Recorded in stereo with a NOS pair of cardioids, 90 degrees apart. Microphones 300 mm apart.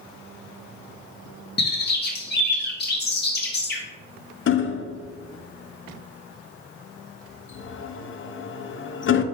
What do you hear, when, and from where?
1.6 s a bird: 35° left, 2.5 m
4.5 s hammering: 40° left, 0.8 m